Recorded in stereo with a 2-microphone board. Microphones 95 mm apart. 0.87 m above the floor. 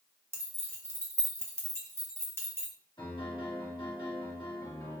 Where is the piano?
55° left (ahead or behind), 1.6 m.